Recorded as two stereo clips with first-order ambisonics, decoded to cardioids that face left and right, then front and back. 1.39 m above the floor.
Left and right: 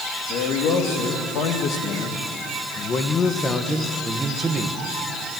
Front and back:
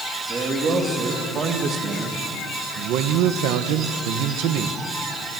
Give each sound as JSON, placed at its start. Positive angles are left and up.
{"t": 0.3, "sound": "a man speaking", "azimuth_deg": 115, "distance_m": 2.5}